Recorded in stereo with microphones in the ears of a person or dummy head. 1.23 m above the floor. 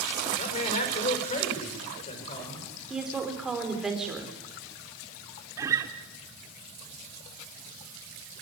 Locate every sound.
0.4 s a man speaking: 40° left (ahead or behind), 4.5 m; by 2.7 s 30° left (ahead or behind), 5 m
2.9 s a woman speaking: 5° right (ahead or behind), 4.5 m
5.6 s a guitar: 20° right (ahead or behind), 1.8 m